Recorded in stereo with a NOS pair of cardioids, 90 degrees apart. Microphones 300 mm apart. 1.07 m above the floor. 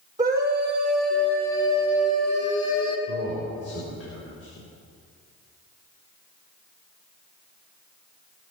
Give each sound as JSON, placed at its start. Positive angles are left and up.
{"t": 0.2, "sound": "a scream", "azimuth_deg": -10, "distance_m": 4.0}
{"t": 3.1, "sound": "a man speaking", "azimuth_deg": 50, "distance_m": 4.0}